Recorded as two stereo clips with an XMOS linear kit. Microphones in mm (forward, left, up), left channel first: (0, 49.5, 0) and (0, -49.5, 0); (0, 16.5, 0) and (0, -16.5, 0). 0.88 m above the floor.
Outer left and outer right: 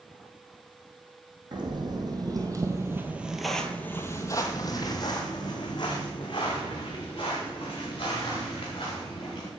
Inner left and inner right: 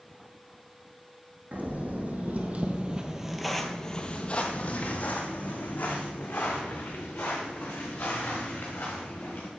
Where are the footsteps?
45° right (ahead or behind), 1.8 m; by 9.5 s 50° left (ahead or behind), 5.5 m.